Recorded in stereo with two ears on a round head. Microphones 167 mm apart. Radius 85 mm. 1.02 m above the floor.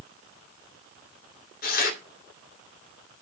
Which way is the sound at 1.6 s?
45° left (ahead or behind).